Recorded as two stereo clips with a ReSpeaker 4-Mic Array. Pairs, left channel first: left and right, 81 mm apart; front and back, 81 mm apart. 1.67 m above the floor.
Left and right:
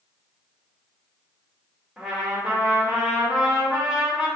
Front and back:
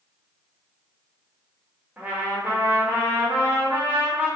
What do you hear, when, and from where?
2.0 s a trumpet: 155° right, 0.8 m